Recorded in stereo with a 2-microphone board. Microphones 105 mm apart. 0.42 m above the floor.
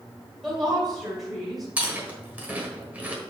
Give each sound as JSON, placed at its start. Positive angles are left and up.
{"t": 0.4, "sound": "a woman speaking", "side_deg": -5, "distance_m": 2.0}
{"t": 1.8, "sound": "chewing", "side_deg": -15, "distance_m": 1.4}